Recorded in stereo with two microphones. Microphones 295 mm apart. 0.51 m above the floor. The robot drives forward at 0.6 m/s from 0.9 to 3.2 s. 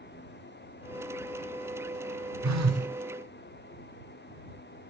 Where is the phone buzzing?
80° right, 0.5 m; by 2.9 s 55° right (ahead or behind), 0.6 m.